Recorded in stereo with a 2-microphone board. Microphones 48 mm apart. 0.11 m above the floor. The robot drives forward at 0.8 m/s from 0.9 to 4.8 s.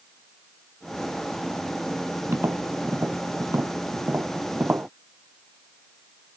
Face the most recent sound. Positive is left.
turn(degrees=-50)  # may be behind; listen again after turning